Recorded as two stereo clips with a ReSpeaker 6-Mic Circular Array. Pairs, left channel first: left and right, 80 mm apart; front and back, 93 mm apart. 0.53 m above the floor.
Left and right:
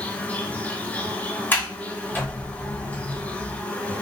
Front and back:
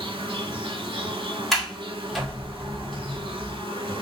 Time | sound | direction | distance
0.0 | an insect | 160° left | 1.0 m
1.5 | a sliding door | 85° left | 1.4 m